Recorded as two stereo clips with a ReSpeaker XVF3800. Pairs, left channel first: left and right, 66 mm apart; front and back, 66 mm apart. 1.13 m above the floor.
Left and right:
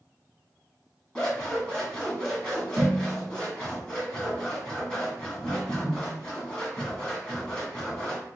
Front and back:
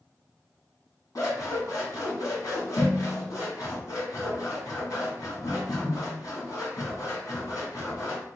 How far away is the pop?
I don't hear a pop.